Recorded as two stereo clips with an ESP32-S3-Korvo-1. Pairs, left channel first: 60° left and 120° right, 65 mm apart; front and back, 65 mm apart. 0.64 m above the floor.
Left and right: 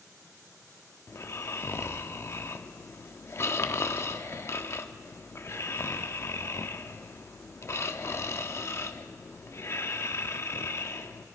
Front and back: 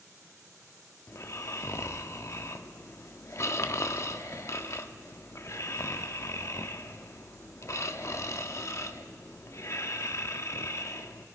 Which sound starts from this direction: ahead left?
Snoring, at 1.1 s.